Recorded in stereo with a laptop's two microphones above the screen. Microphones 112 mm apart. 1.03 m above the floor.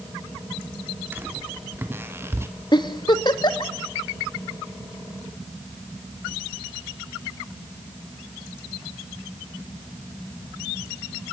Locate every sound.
1.1 s footsteps: 20° right (ahead or behind), 3 m; by 2.5 s 25° right (ahead or behind), 2 m
2.7 s a giggle: 40° left (ahead or behind), 1.5 m